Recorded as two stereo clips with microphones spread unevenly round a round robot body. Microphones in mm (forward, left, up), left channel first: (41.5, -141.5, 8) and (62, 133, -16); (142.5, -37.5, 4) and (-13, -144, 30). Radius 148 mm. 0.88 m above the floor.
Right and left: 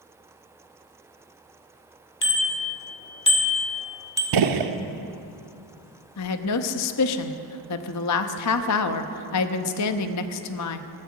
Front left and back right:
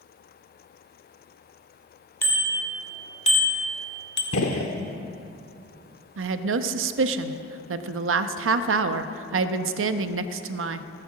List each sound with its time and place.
2.2 s a bicycle bell: 45° right, 2.5 m; by 4.2 s 10° left, 1.6 m
4.3 s a gunshot: 80° left, 0.9 m
6.2 s a woman speaking: 135° right, 0.8 m